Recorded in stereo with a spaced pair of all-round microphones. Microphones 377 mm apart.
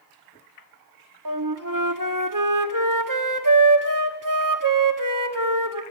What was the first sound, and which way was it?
A flute, 55° right (ahead or behind).